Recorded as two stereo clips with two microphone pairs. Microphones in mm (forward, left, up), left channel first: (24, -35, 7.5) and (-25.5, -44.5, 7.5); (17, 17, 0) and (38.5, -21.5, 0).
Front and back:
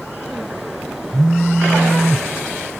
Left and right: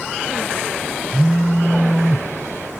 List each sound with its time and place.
1.1 s a phone buzzing: 90° right, 0.6 m